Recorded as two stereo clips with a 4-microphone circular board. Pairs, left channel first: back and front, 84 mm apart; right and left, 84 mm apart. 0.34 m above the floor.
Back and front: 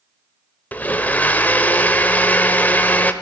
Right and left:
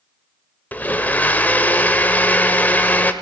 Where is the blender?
135° right, 0.8 m.